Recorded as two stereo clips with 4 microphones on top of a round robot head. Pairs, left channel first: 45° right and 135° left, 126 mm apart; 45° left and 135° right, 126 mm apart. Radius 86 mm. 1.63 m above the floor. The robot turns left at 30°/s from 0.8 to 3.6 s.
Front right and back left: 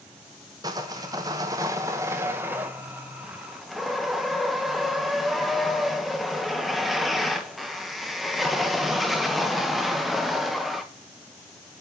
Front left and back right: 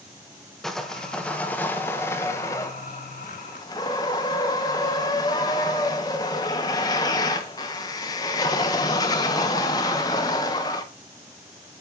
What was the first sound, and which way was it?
Sawing, 130° left.